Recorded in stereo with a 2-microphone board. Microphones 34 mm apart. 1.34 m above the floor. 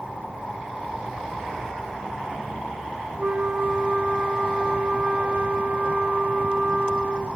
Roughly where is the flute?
Right.